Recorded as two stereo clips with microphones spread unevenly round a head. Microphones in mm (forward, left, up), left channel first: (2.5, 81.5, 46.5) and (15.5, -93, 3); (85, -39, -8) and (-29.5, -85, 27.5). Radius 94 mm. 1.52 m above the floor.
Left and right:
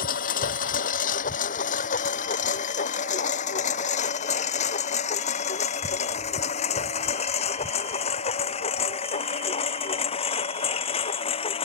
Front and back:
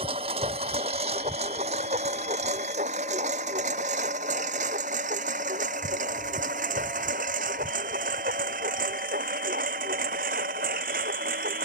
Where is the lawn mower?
140° left; by 11.7 s 155° left.